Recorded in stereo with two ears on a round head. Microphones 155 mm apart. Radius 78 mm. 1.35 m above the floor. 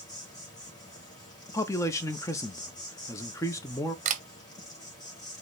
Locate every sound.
0.0 s an insect: 20° left (ahead or behind), 1.8 m
1.5 s a man speaking: 15° left (ahead or behind), 0.6 m
4.0 s a camera shutter: 45° right (ahead or behind), 0.7 m